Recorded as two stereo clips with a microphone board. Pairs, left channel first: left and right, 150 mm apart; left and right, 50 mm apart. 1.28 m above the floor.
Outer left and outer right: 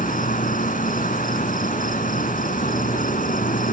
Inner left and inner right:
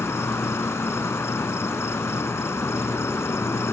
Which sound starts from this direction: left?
An insect, at 0.0 s.